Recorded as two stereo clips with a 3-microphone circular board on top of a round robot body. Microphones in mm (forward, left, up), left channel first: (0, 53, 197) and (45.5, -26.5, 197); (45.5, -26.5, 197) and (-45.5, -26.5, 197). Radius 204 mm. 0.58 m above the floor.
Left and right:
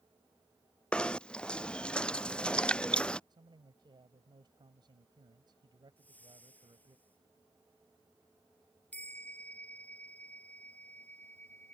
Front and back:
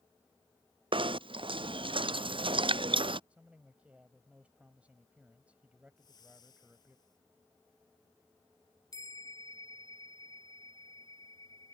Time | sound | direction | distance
0.9 | knocking | 165° right | ?
3.3 | a man speaking | 105° right | ?
6.0 | a whoosh | 45° left | ?
8.9 | a bell | 45° left | ?